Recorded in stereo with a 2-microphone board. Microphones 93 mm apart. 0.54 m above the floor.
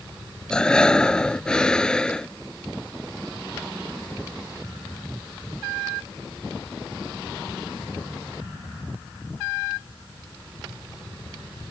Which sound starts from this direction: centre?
Breathing, at 0.5 s.